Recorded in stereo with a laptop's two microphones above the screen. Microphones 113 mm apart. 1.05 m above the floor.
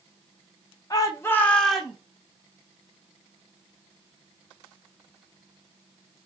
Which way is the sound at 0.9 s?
35° left (ahead or behind).